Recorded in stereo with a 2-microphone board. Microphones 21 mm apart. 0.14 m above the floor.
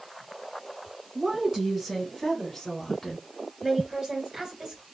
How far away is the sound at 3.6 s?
About 2 m.